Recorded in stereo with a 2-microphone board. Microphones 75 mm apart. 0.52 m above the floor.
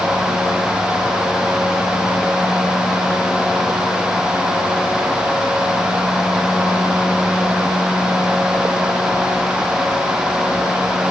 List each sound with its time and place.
Only background noise.